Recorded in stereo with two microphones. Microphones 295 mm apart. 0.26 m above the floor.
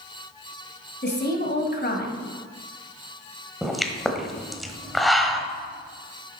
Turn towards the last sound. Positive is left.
turn(degrees=0)  # may be behind; listen again after turning